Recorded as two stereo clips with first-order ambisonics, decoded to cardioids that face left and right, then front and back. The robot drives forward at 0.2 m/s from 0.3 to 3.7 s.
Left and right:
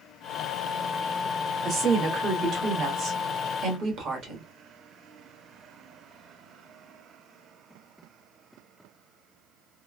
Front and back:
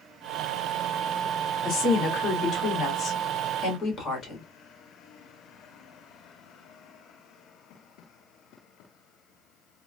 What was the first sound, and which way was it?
A woman speaking, 40° right.